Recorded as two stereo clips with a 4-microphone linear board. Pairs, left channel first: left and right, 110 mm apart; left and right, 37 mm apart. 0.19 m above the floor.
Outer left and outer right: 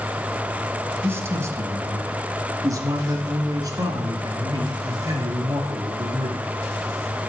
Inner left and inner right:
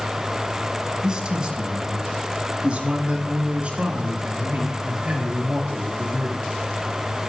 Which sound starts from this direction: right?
A man speaking, at 1.0 s.